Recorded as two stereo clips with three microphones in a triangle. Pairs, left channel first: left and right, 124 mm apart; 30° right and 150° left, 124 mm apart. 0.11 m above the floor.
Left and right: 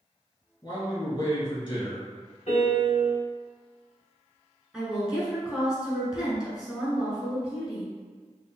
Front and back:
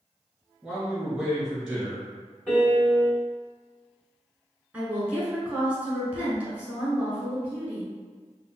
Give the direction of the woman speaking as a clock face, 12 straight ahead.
5 o'clock.